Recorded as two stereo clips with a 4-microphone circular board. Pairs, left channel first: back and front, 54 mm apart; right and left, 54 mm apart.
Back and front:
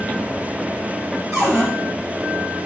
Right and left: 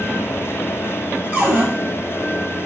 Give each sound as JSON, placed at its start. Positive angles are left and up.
{"t": 1.3, "sound": "a cupboard door", "azimuth_deg": 20, "distance_m": 4.5}